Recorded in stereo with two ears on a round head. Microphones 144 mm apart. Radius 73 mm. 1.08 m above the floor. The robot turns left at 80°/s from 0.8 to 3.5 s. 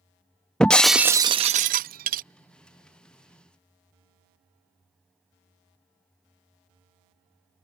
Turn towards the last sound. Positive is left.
turn(degrees=150)